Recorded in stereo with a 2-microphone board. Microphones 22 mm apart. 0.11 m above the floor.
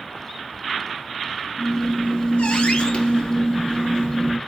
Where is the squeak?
55° left (ahead or behind), 1.0 m.